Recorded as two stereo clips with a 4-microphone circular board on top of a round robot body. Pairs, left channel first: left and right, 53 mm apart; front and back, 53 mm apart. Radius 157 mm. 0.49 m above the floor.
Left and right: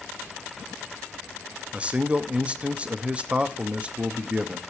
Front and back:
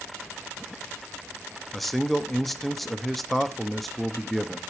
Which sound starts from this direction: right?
A man speaking, at 1.7 s.